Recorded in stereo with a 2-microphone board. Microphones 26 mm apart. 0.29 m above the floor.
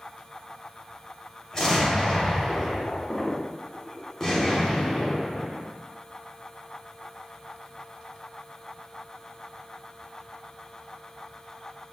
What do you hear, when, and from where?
1.5 s an explosion: 15° left (ahead or behind), 0.9 m